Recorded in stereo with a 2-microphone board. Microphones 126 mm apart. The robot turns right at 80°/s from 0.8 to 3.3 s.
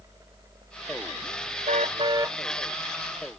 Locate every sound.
1.7 s a car horn: 70° right; by 2.4 s 15° right